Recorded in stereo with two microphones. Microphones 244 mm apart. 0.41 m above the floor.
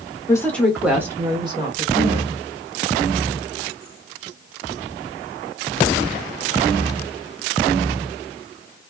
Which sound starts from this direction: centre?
A woman speaking, at 0.3 s.